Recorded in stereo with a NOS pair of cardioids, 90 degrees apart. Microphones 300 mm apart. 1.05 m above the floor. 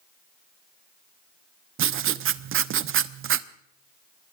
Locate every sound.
1.8 s writing: 50° right, 0.8 m